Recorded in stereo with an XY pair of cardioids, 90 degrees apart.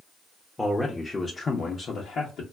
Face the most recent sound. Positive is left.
turn(degrees=75)